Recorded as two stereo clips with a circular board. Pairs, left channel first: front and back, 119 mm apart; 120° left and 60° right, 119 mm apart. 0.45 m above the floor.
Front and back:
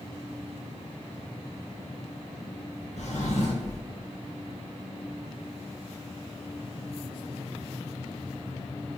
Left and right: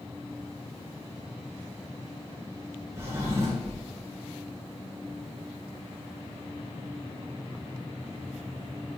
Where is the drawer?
5° left, 2 m.